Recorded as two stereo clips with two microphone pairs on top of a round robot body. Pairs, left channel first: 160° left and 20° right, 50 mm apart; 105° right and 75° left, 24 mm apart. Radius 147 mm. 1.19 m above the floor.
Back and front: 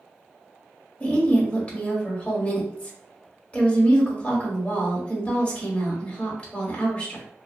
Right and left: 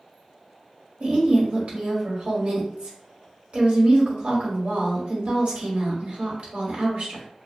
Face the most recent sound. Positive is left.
turn(degrees=100)